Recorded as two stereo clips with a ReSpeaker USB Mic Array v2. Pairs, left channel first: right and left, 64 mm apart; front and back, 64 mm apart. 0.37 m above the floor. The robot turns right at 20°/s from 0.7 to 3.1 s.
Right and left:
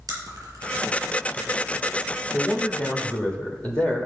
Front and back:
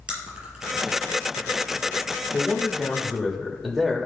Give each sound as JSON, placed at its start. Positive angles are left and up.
{"t": 0.1, "sound": "chewing", "azimuth_deg": 110, "distance_m": 3.0}
{"t": 2.3, "sound": "a man speaking", "azimuth_deg": -110, "distance_m": 1.4}